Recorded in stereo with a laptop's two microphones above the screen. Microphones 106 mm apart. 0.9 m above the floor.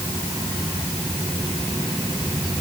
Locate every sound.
Only background noise.